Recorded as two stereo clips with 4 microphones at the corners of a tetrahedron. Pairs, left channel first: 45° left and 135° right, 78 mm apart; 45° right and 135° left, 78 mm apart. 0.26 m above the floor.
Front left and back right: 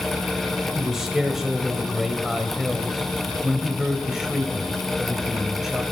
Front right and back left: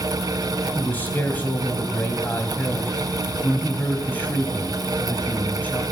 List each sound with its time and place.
0.8 s a man speaking: 55° right, 1.3 m